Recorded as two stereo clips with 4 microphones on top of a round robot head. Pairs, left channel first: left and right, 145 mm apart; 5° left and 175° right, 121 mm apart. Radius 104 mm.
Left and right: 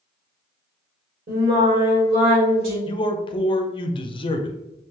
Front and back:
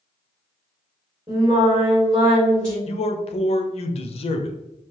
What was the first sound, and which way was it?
Singing, 105° right.